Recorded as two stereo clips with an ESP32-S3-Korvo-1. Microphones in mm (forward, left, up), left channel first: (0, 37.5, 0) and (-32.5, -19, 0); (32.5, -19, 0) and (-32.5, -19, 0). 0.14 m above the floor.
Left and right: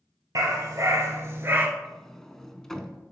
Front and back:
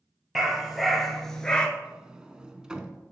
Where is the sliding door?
130° left, 0.6 m.